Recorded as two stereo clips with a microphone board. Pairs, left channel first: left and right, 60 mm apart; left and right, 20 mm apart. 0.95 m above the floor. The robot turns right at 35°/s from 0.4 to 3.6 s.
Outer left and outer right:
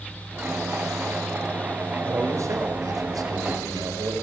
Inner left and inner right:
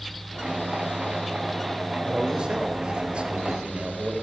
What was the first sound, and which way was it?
A man speaking, 130° right.